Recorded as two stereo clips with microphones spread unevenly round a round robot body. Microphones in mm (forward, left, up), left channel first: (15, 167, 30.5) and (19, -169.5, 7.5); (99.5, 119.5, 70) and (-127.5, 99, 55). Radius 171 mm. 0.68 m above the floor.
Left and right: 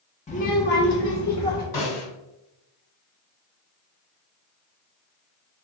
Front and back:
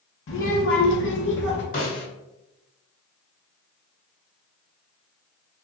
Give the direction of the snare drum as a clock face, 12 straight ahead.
10 o'clock.